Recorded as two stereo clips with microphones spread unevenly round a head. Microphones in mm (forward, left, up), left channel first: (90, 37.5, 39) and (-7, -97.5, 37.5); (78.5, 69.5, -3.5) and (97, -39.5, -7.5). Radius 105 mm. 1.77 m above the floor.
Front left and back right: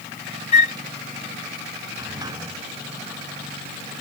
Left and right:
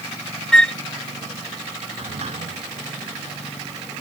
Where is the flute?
20° left.